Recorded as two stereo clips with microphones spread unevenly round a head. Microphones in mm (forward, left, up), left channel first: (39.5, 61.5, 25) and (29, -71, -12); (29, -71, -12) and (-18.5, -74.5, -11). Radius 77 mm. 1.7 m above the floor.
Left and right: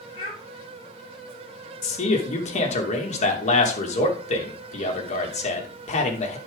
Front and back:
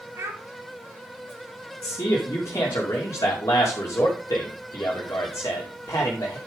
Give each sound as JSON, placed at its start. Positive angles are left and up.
{"t": 0.1, "sound": "a child speaking", "azimuth_deg": 145, "distance_m": 7.5}
{"t": 1.8, "sound": "a man speaking", "azimuth_deg": 50, "distance_m": 2.5}